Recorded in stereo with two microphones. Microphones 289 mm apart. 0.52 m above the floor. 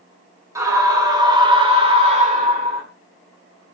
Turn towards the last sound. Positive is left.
turn(degrees=-30)  # may be behind; listen again after turning